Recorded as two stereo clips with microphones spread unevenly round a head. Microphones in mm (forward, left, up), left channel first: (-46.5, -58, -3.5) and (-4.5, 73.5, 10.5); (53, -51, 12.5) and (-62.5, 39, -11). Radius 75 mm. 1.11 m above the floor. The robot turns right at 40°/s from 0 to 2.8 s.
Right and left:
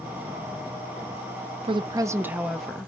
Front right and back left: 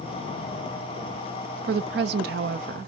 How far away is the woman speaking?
About 0.5 m.